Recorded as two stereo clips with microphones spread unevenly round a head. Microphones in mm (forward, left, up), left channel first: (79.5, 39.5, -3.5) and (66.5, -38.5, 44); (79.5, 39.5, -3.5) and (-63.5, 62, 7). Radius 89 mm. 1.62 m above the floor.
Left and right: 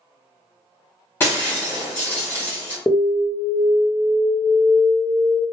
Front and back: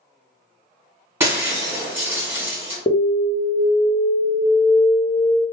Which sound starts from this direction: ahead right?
An alarm, at 2.9 s.